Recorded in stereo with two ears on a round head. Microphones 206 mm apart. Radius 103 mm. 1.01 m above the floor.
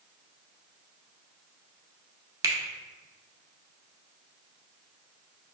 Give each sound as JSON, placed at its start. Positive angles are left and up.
{"t": 2.4, "sound": "a finger snap", "side_deg": -15, "distance_m": 0.5}